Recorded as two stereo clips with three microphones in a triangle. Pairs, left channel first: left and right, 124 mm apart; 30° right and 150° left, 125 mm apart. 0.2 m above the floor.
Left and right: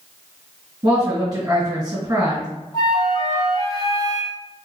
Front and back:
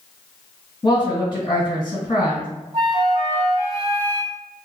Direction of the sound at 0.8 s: 60° right.